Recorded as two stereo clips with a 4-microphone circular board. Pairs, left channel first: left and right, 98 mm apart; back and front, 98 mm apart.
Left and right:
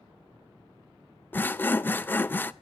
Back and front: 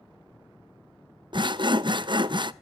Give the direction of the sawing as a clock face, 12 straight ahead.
11 o'clock.